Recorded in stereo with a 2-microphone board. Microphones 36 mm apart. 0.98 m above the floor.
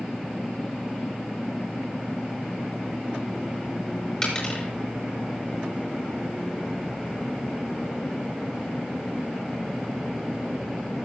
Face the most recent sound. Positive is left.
turn(degrees=25)  # may be behind; listen again after turning